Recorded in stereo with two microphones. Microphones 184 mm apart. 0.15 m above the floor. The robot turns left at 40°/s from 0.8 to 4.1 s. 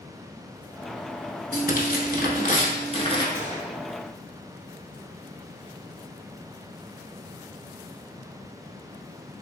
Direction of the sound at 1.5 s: 100° left.